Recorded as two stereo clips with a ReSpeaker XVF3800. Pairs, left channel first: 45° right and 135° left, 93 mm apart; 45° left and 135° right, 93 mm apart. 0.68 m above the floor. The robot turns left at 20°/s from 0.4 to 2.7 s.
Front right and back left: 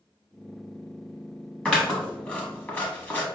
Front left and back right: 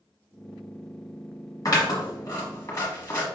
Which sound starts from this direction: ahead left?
Scissors, at 1.6 s.